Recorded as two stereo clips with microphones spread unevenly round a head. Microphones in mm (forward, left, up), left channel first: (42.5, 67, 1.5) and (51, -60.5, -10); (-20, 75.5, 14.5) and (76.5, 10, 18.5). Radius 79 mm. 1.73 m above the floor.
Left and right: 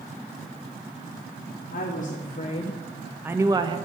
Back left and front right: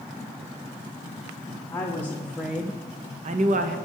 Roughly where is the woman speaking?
Left.